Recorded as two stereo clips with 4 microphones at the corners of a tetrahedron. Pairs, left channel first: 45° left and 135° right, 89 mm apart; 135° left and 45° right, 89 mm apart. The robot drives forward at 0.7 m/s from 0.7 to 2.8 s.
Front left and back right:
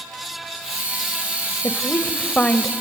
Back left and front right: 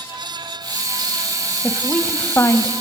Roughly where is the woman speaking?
Ahead left.